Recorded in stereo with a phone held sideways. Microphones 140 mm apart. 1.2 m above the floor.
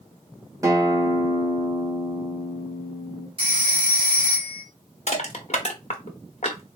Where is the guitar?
25° right (ahead or behind), 1.2 m.